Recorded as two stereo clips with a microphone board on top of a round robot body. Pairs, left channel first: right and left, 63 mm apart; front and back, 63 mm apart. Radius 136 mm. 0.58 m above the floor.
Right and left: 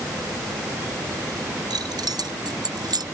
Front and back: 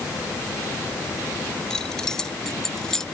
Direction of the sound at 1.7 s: 80° left.